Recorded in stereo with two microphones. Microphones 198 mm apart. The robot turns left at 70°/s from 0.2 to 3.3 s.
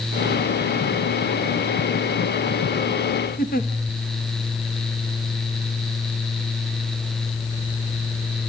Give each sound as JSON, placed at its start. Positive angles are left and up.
{"t": 3.4, "sound": "a giggle", "side_deg": 50, "distance_m": 1.7}